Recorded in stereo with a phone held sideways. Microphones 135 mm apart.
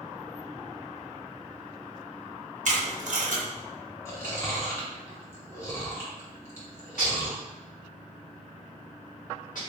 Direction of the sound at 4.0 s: 20° left (ahead or behind).